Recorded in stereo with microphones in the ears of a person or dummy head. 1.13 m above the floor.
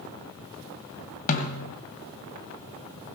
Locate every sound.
1.3 s a snare drum: 45° left (ahead or behind), 1.9 m